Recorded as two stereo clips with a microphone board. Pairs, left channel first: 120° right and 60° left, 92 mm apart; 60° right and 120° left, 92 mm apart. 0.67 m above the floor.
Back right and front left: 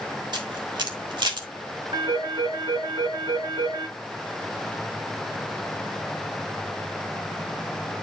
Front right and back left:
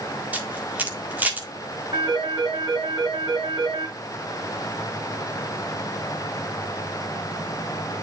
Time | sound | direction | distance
0.3 | a camera shutter | 55° left | 1.7 m
1.9 | a phone ringing | 80° left | 6 m